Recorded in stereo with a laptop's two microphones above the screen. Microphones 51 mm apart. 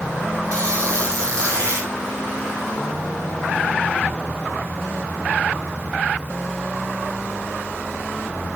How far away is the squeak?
About 4.5 m.